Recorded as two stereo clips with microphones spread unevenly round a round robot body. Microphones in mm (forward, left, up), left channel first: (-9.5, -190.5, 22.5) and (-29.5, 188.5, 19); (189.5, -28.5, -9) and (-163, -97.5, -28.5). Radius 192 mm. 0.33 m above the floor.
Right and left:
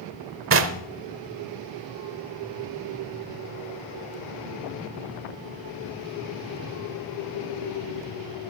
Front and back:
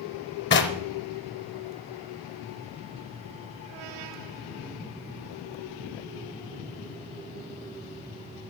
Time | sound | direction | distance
0.5 | knocking | 60° left | 0.9 m